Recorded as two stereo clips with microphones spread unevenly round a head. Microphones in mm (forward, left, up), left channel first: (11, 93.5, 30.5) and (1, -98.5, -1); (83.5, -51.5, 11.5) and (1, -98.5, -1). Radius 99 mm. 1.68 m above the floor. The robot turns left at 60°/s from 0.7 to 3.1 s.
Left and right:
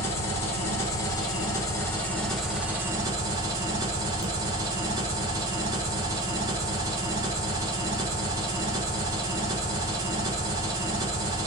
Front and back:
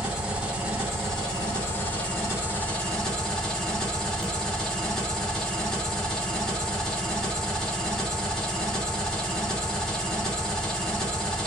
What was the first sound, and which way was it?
An engine running, 120° left.